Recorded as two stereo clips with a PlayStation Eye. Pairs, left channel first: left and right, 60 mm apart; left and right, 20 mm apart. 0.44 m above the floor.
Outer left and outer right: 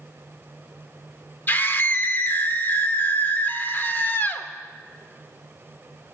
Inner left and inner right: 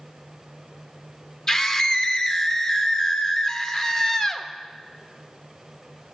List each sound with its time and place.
1.5 s a scream: 30° left (ahead or behind), 0.8 m